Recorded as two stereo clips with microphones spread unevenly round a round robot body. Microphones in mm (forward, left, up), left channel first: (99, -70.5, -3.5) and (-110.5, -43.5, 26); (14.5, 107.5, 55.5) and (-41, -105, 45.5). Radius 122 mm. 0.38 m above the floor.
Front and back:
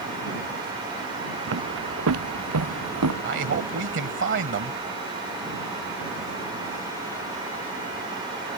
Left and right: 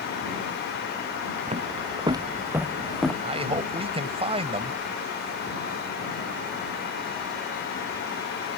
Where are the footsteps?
165° right; by 3.1 s 160° left.